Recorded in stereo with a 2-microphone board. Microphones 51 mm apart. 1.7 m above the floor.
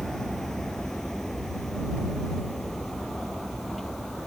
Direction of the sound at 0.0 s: 10° left (ahead or behind).